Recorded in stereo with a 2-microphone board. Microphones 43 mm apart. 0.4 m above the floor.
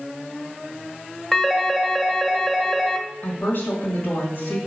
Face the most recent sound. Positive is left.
turn(degrees=45)  # may be behind; listen again after turning